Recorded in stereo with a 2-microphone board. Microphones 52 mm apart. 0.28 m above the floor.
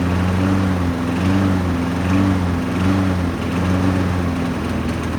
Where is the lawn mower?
Centre (ahead or behind).